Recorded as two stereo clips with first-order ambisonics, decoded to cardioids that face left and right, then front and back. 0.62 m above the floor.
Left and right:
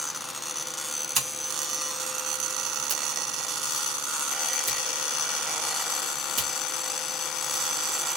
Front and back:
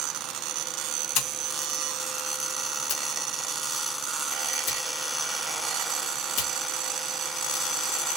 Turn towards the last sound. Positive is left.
turn(degrees=-25)